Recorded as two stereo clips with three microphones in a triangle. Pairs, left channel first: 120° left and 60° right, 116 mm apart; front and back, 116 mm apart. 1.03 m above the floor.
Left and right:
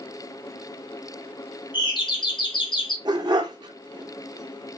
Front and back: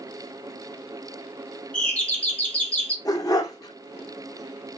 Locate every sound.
1.7 s a doorbell: 80° left, 1.7 m
3.0 s a dog barking: 40° right, 0.7 m